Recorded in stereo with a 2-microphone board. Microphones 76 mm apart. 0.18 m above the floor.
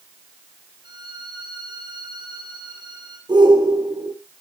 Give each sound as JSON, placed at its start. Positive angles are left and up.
{"t": 0.8, "sound": "a violin", "side_deg": -80, "distance_m": 4.5}
{"t": 3.3, "sound": "a shout", "side_deg": -80, "distance_m": 8.5}